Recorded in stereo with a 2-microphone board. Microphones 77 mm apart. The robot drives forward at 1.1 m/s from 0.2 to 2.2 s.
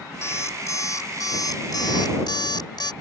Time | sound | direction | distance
0.2 | an alarm clock | 40° left (ahead or behind) | ?